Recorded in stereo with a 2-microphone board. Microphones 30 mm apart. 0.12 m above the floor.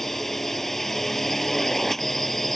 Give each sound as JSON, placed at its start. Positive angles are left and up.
{"t": 0.0, "sound": "a drone", "side_deg": 10}